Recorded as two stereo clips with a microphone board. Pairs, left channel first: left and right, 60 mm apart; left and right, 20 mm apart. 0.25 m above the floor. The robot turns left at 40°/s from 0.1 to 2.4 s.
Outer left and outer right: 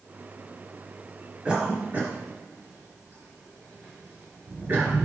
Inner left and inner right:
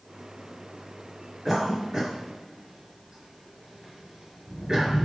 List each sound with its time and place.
1.4 s a cough: 15° right (ahead or behind), 1.2 m; by 5.0 s 35° right (ahead or behind), 1.2 m